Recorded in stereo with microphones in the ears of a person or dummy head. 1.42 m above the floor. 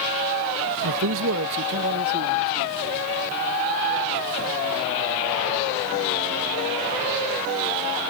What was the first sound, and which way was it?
A man speaking, 85° right.